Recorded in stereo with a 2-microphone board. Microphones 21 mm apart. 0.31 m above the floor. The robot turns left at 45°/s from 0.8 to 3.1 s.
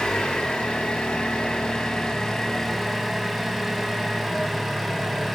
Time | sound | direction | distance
0.0 | an engine running | 100° left | 0.7 m